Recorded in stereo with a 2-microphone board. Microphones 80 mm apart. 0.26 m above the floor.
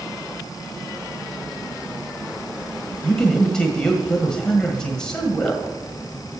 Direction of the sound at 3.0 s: 10° left (ahead or behind).